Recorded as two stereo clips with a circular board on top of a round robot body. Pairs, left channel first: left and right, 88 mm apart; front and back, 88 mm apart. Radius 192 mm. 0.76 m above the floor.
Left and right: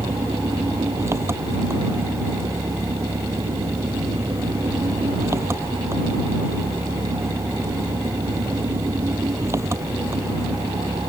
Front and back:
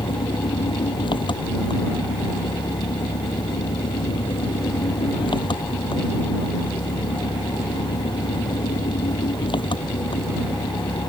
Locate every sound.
0.0 s an engine running: 30° right